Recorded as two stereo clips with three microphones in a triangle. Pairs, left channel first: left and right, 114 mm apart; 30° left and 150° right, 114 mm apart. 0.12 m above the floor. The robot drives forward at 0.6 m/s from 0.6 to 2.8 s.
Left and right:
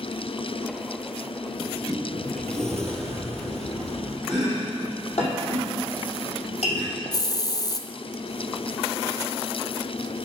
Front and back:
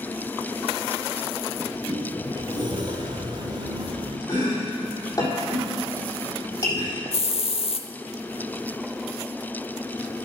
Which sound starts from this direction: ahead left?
A hiss, at 7.1 s.